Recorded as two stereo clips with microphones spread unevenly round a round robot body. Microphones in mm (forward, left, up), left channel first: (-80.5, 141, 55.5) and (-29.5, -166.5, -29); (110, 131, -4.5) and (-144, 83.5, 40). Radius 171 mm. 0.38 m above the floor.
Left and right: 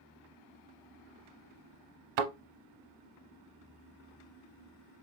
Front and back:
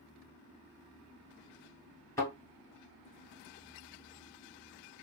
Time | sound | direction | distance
2.2 | a thud | 75° right | 0.8 m